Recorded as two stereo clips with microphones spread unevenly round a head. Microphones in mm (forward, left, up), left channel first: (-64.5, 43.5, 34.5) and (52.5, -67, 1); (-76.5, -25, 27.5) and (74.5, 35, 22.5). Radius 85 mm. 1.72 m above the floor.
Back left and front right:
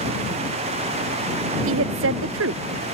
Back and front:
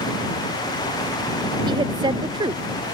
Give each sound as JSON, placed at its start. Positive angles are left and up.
{"t": 1.7, "sound": "a woman speaking", "azimuth_deg": -45}